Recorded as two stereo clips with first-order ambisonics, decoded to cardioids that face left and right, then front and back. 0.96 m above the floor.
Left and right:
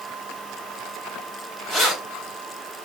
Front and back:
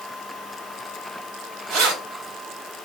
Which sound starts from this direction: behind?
Keys jangling, at 1.7 s.